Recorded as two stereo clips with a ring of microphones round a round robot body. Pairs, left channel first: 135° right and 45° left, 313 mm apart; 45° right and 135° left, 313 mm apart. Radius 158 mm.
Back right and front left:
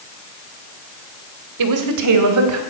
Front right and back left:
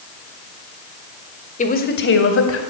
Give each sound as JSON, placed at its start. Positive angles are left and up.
{"t": 1.6, "sound": "a woman speaking", "azimuth_deg": 20, "distance_m": 2.5}